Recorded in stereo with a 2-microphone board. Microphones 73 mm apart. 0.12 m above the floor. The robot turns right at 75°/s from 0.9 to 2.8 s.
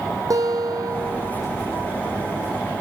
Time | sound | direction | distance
0.3 | a guitar | 120° right | 2.5 m